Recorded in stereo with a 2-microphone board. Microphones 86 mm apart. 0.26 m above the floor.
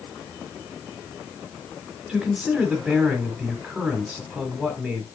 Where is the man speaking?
Centre (ahead or behind), 2 m.